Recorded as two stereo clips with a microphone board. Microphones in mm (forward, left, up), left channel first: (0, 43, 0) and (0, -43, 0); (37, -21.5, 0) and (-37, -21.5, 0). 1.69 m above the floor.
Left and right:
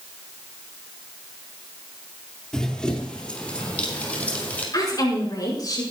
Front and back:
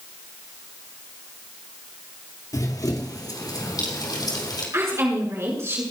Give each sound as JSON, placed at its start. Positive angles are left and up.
{"t": 2.5, "sound": "running footsteps", "azimuth_deg": 10, "distance_m": 2.5}
{"t": 4.7, "sound": "a woman speaking", "azimuth_deg": 130, "distance_m": 5.5}